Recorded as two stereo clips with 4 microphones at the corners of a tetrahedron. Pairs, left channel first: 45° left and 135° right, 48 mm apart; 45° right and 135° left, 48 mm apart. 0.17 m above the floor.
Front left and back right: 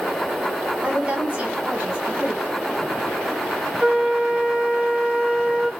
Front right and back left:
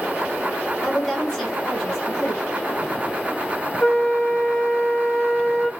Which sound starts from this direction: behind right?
A woman speaking, at 0.8 s.